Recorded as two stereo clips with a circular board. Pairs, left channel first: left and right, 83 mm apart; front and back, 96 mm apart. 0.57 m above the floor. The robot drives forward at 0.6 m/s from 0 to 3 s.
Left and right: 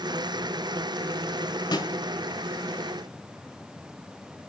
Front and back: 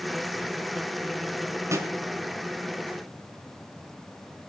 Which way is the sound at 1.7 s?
120° left.